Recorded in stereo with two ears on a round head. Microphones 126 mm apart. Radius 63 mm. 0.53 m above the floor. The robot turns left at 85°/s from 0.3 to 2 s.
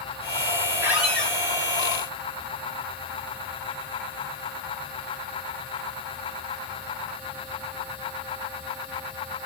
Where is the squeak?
160° right, 1.2 m; by 1.4 s 155° left, 1.2 m.